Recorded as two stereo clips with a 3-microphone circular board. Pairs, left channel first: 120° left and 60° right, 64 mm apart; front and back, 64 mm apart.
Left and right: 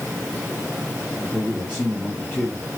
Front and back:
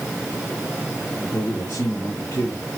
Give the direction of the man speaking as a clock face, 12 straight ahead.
11 o'clock.